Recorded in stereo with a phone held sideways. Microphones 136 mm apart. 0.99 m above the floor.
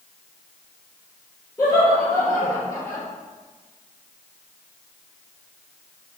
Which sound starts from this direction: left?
Laughter, at 1.6 s.